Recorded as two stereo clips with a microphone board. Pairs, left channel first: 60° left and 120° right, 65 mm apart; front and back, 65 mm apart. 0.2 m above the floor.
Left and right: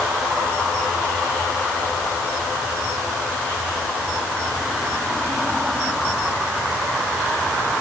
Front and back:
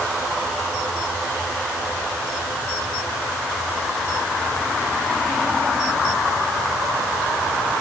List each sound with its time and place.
Only background noise.